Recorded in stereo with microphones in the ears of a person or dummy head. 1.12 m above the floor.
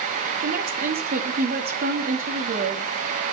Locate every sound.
0.4 s a woman speaking: 50° right (ahead or behind), 2 m